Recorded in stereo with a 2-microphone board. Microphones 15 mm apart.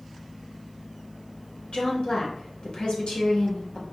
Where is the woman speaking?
85° left, 1.4 m.